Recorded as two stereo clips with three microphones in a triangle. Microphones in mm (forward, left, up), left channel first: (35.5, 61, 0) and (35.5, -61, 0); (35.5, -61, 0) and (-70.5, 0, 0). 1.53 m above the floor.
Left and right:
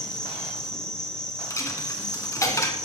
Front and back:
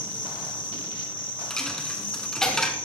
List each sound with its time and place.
0.0 s an insect: 10° left, 1.8 m
1.5 s a dropped coin: 50° left, 1.6 m